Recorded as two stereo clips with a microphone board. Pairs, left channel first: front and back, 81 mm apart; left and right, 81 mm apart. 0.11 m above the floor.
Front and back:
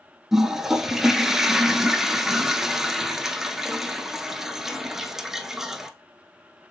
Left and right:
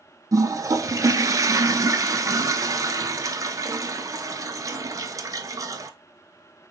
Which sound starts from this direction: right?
A toilet flushing, at 0.3 s.